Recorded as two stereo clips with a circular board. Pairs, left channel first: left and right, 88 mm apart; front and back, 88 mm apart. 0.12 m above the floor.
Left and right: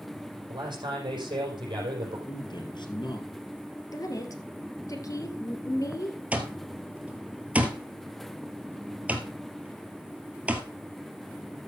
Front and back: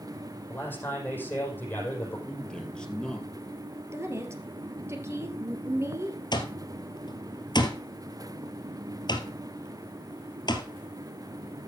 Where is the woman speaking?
130° left, 2.5 m.